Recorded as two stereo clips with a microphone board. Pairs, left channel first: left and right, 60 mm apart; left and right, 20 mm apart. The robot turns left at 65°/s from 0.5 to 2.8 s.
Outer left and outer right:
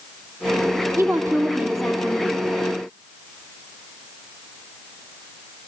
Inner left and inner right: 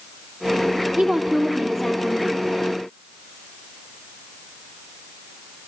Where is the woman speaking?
125° right, 3 m; by 2.4 s 140° left, 3 m.